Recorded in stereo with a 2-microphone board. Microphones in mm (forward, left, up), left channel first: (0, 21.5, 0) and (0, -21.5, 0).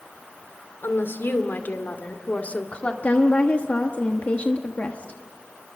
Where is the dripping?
No dripping in this recording.